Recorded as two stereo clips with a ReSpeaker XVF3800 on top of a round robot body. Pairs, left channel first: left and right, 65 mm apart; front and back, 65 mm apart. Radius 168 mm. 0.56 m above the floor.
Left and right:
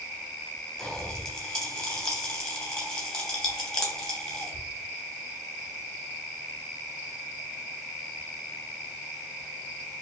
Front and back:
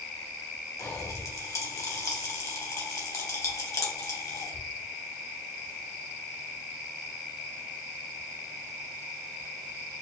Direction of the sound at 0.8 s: 5° left.